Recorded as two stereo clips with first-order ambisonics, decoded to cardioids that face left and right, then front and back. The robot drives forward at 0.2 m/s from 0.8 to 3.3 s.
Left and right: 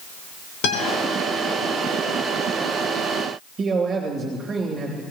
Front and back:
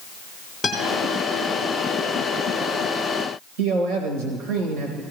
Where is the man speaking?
160° right, 3 m.